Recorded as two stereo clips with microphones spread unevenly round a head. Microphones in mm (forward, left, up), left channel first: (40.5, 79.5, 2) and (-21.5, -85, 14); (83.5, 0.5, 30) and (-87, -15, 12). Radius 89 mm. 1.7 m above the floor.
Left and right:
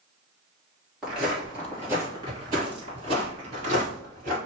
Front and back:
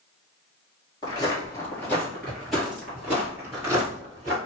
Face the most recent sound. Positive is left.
turn(degrees=-105)